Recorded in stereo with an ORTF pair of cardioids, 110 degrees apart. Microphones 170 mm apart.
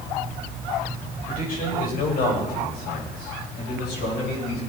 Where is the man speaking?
55° left, 6.5 m; by 4.6 s 75° left, 9 m.